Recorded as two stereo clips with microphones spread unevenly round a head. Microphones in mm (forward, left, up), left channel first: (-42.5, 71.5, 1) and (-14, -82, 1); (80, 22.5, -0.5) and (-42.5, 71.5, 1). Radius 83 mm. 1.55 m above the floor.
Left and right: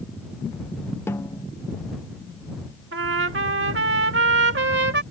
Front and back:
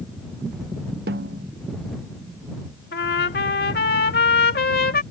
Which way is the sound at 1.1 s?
175° left.